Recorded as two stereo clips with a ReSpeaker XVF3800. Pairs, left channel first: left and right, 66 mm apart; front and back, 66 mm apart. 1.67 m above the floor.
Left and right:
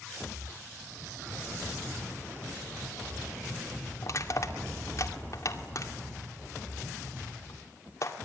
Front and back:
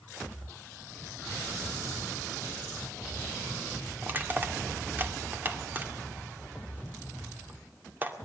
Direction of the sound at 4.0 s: 125° left.